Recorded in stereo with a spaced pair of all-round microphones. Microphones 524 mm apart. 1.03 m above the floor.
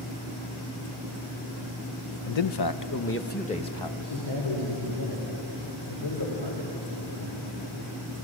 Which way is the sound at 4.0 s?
50° left (ahead or behind).